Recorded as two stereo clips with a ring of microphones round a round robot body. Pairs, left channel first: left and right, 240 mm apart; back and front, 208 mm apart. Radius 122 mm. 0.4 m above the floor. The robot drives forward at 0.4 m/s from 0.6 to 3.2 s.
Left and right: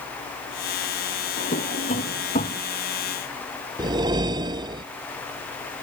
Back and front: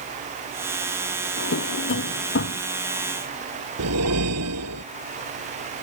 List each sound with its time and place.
1.4 s a drawer: 150° left; by 2.6 s 155° left
3.8 s a whoosh: 15° right